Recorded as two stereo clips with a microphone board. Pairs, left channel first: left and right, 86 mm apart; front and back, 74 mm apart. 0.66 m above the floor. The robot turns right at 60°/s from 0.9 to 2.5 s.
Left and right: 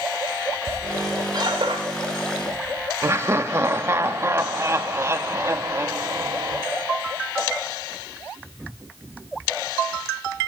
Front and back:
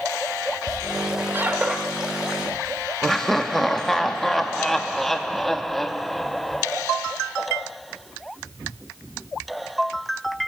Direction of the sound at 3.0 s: 85° right.